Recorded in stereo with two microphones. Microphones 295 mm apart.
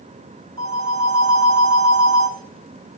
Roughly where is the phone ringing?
Right.